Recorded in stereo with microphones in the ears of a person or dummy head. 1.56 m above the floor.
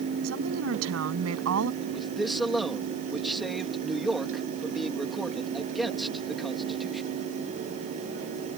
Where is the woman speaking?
90° right.